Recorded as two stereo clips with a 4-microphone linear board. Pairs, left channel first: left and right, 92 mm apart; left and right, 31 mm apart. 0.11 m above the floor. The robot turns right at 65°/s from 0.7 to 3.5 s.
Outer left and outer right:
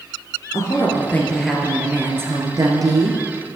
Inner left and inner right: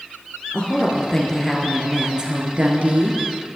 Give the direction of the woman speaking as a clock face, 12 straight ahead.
8 o'clock.